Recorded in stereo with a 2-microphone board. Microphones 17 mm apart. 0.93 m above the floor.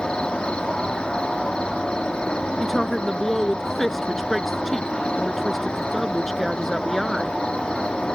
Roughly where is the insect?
Left.